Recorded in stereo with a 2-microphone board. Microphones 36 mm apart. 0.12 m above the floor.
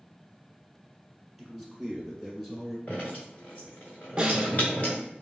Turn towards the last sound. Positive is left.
turn(degrees=-30)  # may be behind; listen again after turning